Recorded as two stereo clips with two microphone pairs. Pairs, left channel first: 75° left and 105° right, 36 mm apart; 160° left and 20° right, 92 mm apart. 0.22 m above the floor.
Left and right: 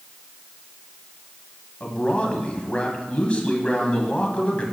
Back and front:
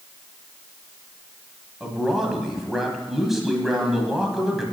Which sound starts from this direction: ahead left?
A man speaking, at 1.8 s.